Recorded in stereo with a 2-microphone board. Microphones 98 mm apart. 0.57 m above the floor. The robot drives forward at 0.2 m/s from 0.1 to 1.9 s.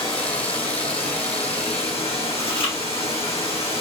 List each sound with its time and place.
0.0 s running water: 55° left (ahead or behind), 1.0 m; by 3.8 s 75° left (ahead or behind), 0.9 m
2.4 s chewing: 55° left (ahead or behind), 1.0 m